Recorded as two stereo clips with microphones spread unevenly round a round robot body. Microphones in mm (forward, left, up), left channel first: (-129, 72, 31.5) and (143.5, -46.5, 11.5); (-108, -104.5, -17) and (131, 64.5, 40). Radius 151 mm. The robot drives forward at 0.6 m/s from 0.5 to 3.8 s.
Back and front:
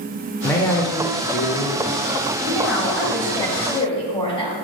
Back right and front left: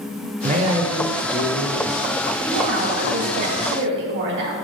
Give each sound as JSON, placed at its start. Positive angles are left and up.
{"t": 0.4, "sound": "a man speaking", "azimuth_deg": 75, "distance_m": 1.1}
{"t": 2.4, "sound": "a woman speaking", "azimuth_deg": 60, "distance_m": 2.0}